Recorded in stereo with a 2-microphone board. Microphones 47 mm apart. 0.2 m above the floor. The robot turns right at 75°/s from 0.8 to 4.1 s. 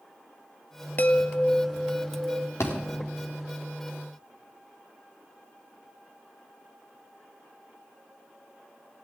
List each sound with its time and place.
1.0 s a chime: 140° left, 0.7 m; by 2.5 s 105° right, 0.7 m
2.6 s a thud: 85° left, 3.5 m